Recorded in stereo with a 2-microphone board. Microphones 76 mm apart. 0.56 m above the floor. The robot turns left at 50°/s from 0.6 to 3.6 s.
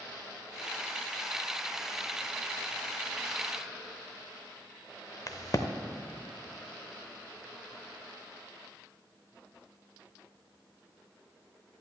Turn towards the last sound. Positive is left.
turn(degrees=50)  # may be behind; listen again after turning